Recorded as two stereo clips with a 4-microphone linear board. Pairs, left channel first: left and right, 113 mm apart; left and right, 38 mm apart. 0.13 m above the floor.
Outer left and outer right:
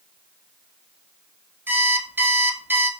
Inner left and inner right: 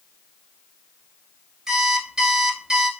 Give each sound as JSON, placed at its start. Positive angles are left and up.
{"t": 1.7, "sound": "an alarm clock", "side_deg": -20, "distance_m": 0.9}